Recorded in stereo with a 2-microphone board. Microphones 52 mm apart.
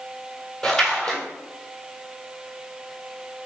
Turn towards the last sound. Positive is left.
turn(degrees=15)  # may be behind; listen again after turning